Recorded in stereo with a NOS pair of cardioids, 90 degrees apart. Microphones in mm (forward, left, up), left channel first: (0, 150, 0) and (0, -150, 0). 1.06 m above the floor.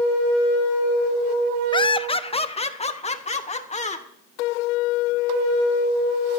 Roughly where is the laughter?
Ahead.